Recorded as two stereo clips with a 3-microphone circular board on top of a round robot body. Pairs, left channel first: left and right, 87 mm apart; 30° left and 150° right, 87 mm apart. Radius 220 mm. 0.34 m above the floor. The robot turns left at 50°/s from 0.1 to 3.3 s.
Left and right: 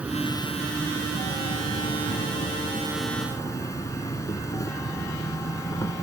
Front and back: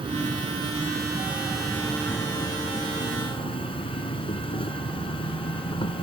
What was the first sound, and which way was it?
An insect, 165° right.